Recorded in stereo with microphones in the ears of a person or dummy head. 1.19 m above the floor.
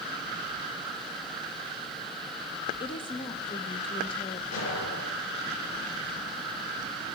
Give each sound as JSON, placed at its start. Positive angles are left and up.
{"t": 2.8, "sound": "a woman speaking", "side_deg": 30, "distance_m": 1.1}
{"t": 4.5, "sound": "an explosion", "side_deg": 80, "distance_m": 6.5}